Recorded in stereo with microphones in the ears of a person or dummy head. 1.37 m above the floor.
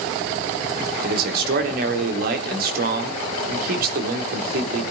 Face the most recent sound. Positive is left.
turn(degrees=-60)  # may be behind; listen again after turning